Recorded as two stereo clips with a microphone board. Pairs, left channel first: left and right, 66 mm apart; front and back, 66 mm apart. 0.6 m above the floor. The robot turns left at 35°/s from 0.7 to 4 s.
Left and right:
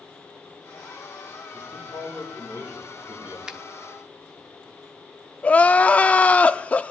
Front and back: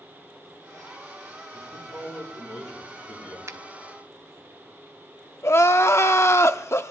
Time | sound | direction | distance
1.5 | a man speaking | 25° left | 9 m
3.5 | a finger snap | 160° right | 0.8 m
5.4 | crying | 30° left | 0.6 m